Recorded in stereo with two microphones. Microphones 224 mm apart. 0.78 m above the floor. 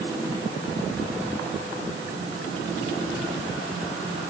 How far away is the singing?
No singing in this recording.